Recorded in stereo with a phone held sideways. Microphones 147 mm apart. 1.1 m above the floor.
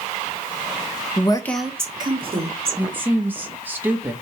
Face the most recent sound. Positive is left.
turn(degrees=-15)  # may be behind; listen again after turning